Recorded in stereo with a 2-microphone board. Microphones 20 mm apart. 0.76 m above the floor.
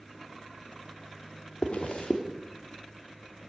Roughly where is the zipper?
Left.